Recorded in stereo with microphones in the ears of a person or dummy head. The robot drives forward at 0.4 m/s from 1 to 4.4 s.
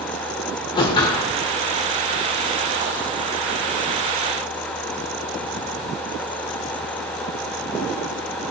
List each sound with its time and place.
0.8 s a whoosh: 25° left (ahead or behind), 1.4 m; by 1.3 s 20° left (ahead or behind), 1.5 m